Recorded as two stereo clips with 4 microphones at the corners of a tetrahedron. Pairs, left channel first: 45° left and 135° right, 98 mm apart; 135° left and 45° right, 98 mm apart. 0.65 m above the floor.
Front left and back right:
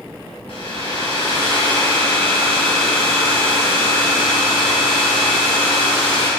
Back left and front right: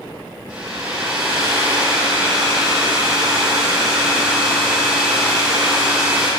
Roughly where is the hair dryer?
Ahead left.